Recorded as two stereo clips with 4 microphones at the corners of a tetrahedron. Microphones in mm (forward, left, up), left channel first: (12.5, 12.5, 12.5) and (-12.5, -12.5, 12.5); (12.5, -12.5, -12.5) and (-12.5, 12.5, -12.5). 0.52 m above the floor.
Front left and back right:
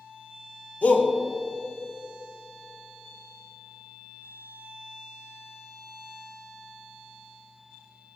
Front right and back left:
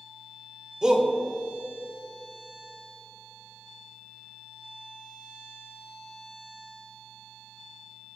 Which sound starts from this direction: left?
A shout, at 0.8 s.